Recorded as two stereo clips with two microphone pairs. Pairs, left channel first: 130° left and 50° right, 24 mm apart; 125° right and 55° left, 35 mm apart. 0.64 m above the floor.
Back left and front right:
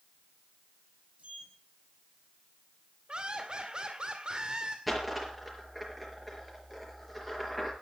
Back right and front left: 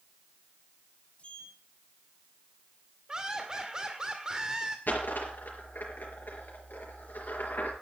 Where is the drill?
No drill in this recording.